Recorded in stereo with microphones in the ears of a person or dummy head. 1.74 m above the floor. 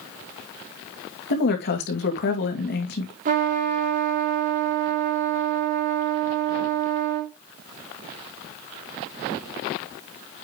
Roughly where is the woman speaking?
Left.